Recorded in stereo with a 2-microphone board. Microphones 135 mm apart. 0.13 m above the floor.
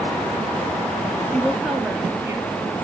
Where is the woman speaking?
10° left (ahead or behind), 2.5 m; by 2.5 s 25° right (ahead or behind), 3 m.